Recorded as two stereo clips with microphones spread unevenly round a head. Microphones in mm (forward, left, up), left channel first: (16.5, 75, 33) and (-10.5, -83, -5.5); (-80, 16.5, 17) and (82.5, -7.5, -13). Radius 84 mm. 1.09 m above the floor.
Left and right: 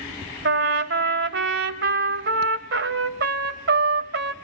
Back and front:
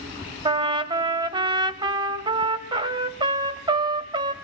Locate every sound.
0.5 s a trumpet: 75° right, 1.3 m